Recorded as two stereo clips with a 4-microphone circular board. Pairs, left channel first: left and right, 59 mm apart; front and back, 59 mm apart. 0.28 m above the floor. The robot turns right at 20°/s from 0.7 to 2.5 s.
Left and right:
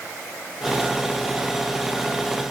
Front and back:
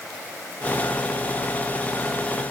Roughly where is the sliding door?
No sliding door in this recording.